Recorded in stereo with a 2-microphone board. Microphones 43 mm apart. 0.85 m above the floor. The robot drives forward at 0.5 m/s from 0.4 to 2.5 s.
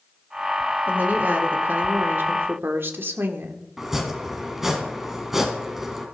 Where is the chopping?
10° right (ahead or behind), 2.5 m.